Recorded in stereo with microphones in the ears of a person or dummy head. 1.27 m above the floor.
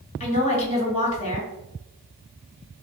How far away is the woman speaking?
About 1.1 m.